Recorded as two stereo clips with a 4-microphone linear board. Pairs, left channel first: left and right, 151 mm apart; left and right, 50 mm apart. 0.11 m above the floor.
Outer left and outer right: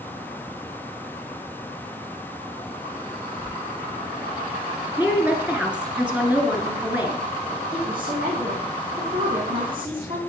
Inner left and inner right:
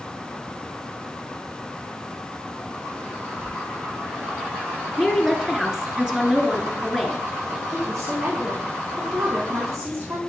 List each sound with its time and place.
3.4 s a squeak: 75° right (ahead or behind), 5 m
5.0 s a woman speaking: 10° right (ahead or behind), 1.8 m
7.7 s a woman speaking: 70° right (ahead or behind), 5 m